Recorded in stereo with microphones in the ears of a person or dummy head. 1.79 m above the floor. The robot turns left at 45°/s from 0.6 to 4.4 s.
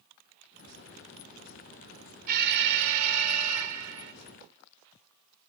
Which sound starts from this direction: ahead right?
An alarm, at 2.3 s.